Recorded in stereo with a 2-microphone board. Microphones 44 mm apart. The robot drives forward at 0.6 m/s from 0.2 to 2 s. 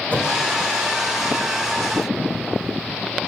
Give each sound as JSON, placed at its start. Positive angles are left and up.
{"t": 0.1, "sound": "a whoosh", "side_deg": 40, "distance_m": 1.0}